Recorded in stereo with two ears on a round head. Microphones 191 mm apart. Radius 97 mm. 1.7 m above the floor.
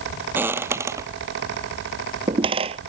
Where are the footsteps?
10° right (ahead or behind); by 2.8 s 30° right (ahead or behind).